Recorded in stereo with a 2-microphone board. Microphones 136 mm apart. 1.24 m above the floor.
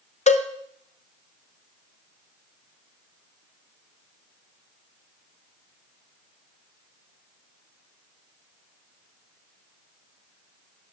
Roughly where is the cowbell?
Left.